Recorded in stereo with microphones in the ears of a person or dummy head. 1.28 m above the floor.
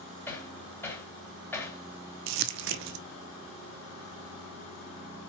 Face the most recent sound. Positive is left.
turn(degrees=-65)  # may be behind; listen again after turning